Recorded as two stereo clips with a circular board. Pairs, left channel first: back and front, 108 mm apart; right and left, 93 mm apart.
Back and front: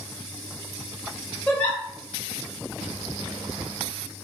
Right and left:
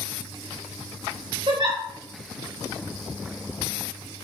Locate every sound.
1.5 s a giggle: 105° left, 1.4 m